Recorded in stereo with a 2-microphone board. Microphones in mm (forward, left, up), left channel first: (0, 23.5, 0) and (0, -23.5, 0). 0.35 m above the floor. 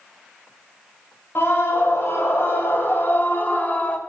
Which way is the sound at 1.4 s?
55° left (ahead or behind).